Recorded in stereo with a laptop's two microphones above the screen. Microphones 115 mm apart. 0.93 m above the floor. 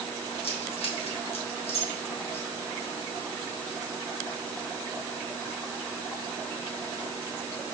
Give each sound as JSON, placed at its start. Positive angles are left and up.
{"t": 0.4, "sound": "keys jangling", "side_deg": 65, "distance_m": 0.9}